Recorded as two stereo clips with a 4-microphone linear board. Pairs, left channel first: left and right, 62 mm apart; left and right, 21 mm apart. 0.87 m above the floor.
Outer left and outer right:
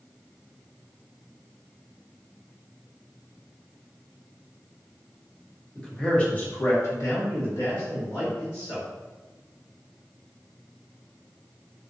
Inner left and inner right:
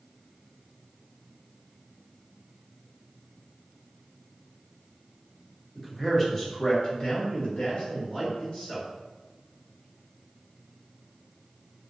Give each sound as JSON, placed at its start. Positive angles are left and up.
{"t": 5.8, "sound": "a man speaking", "side_deg": 5, "distance_m": 1.2}